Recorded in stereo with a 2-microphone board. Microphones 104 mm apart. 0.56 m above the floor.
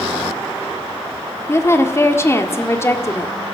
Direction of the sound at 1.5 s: 25° left (ahead or behind).